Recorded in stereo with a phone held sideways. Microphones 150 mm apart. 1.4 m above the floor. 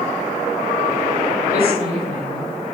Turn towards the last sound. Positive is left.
turn(degrees=70)  # may be behind; listen again after turning